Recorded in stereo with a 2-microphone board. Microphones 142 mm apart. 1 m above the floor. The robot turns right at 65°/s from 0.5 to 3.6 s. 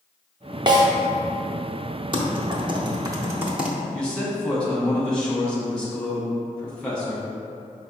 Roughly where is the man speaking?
Centre.